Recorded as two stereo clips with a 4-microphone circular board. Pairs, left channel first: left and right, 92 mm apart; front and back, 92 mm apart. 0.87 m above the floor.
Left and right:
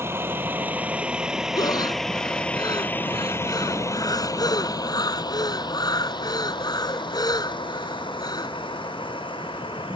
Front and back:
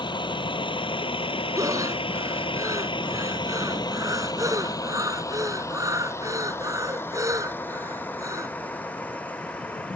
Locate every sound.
0.0 s a vehicle: 30° right; by 10.0 s 75° left
1.6 s breathing: 130° left